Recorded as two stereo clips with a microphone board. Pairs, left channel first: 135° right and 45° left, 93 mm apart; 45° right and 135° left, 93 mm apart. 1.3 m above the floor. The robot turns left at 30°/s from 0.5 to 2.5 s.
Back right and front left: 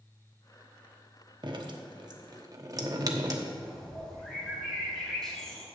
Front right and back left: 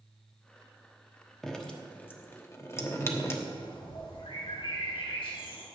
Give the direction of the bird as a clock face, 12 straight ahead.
2 o'clock.